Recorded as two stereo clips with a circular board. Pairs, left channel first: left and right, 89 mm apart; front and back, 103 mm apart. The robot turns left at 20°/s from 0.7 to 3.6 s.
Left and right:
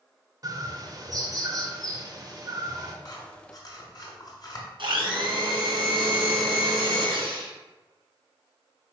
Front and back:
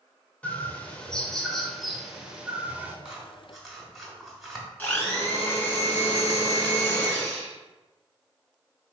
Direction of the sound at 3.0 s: 105° left.